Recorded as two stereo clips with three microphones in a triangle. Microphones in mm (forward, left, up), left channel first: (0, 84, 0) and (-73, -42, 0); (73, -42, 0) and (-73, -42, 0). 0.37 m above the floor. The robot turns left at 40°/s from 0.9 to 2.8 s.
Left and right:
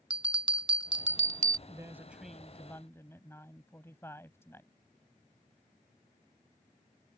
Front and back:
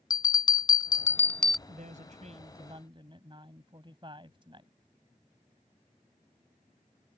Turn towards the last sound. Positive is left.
turn(degrees=130)